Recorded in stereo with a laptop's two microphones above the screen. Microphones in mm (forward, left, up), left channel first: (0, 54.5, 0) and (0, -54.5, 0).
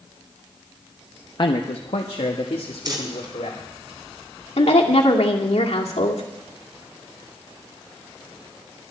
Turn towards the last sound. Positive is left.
turn(degrees=75)  # may be behind; listen again after turning